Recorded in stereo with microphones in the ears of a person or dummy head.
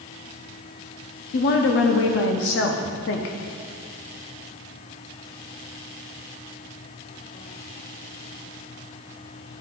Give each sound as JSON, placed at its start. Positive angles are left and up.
{"t": 1.3, "sound": "a woman speaking", "side_deg": 50, "distance_m": 0.7}